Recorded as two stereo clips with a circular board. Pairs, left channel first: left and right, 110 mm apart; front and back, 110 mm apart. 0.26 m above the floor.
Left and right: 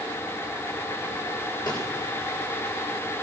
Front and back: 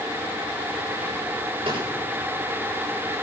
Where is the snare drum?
140° left, 7.5 m.